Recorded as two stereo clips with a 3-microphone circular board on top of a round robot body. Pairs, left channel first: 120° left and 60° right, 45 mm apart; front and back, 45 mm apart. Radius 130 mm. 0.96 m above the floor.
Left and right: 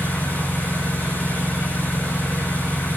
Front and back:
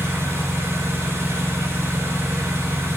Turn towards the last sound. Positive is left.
turn(degrees=170)